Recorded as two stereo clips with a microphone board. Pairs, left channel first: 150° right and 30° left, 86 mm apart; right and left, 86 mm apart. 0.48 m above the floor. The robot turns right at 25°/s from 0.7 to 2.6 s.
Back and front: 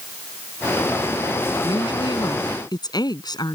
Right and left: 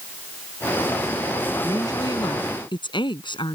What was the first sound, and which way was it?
A woman speaking, 140° right.